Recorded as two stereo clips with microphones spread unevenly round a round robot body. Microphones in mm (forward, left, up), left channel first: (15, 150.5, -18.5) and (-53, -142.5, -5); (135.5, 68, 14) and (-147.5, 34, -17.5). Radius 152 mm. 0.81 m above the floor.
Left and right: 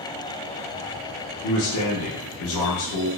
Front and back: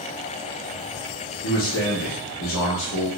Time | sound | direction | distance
1.4 | a man speaking | 50° left | 0.7 m